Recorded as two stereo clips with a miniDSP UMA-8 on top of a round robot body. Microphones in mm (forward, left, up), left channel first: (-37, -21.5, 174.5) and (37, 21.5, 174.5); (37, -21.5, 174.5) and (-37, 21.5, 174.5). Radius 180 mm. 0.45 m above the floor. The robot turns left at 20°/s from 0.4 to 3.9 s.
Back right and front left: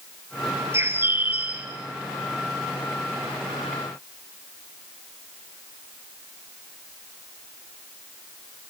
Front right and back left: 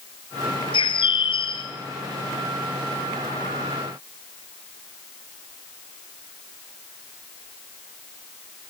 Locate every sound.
0.7 s a bird: 30° right, 2.5 m; by 1.7 s 45° right, 2.5 m